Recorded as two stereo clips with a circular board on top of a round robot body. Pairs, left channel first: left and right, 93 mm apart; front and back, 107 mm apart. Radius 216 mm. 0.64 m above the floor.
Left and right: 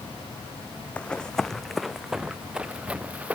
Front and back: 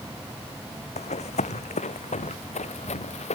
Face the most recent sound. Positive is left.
turn(degrees=-15)